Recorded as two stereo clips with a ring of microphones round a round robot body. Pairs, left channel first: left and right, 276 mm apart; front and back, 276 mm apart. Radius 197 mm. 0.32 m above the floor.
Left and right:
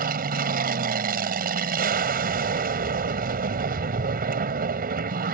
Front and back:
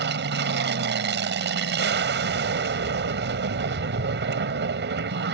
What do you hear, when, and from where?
0.0 s an aircraft: 140° right